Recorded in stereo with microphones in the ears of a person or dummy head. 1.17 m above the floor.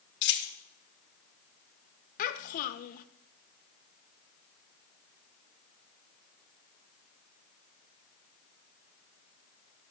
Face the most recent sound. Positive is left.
turn(degrees=50)  # may be behind; listen again after turning